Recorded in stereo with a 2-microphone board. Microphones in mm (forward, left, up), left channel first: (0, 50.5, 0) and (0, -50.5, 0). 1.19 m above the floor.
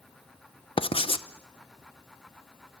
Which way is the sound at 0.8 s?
65° left (ahead or behind).